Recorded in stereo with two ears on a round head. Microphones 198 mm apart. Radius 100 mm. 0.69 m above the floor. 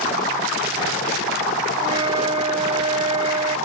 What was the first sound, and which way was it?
A flute, 25° right (ahead or behind).